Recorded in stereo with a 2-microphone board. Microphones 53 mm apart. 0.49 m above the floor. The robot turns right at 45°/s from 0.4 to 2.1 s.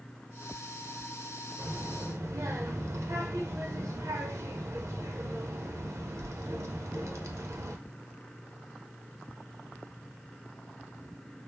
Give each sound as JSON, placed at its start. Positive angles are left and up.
{"t": 1.6, "sound": "a child speaking", "side_deg": -55, "distance_m": 0.9}